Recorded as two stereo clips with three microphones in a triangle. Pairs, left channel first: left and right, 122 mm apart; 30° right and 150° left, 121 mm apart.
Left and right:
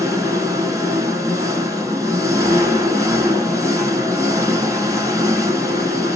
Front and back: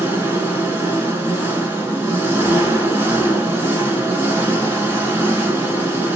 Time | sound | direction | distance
0.0 | an engine running | 145° right | 0.8 m